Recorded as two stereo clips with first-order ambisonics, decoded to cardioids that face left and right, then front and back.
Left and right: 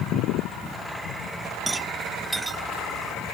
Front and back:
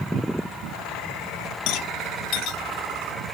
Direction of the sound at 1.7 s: 10° right.